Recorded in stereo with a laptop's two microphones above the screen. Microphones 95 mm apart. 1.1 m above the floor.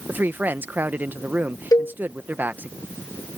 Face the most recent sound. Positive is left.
turn(degrees=40)  # may be behind; listen again after turning